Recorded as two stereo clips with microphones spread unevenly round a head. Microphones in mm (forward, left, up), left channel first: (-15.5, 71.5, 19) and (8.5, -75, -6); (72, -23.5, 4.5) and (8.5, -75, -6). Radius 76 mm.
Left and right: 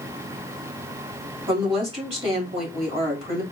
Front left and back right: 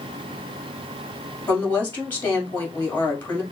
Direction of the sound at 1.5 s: 30° right.